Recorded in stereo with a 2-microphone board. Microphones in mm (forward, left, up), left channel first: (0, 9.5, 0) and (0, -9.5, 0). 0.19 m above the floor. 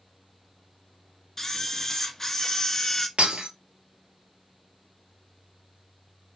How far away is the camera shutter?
About 0.7 m.